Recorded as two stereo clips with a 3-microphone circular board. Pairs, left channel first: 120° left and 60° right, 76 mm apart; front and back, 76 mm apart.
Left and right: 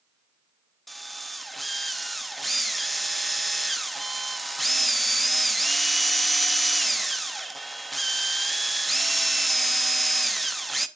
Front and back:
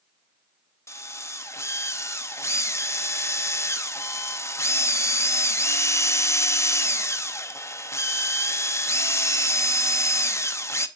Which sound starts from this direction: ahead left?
A drill, at 0.9 s.